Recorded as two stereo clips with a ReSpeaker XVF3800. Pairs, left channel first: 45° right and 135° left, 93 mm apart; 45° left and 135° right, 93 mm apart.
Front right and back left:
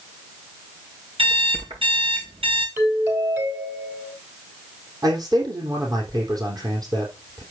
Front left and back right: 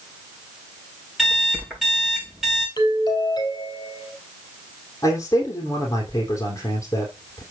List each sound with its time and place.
1.2 s an alarm clock: 140° left, 6.5 m
2.8 s a doorbell: 75° left, 3 m
5.0 s a man speaking: 95° left, 3.5 m